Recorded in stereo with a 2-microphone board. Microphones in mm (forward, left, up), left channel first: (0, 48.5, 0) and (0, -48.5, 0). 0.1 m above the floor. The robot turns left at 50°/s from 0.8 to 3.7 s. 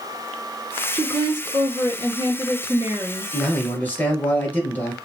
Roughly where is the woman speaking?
Ahead right.